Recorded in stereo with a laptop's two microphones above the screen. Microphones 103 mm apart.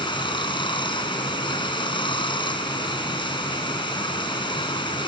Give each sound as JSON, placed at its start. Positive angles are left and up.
{"t": 0.0, "sound": "running water", "side_deg": 50}